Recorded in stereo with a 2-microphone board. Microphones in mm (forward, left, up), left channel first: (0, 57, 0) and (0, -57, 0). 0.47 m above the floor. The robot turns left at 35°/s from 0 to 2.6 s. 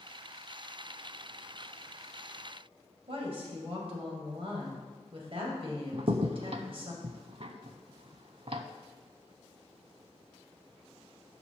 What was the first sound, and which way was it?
A woman speaking, 55° right (ahead or behind).